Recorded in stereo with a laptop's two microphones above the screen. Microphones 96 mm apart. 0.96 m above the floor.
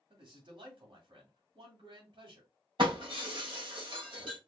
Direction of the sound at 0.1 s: 60° right (ahead or behind).